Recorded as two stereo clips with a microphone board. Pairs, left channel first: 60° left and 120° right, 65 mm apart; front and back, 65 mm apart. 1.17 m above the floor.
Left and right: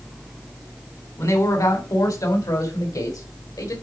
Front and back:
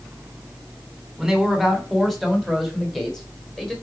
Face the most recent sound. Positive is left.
turn(degrees=80)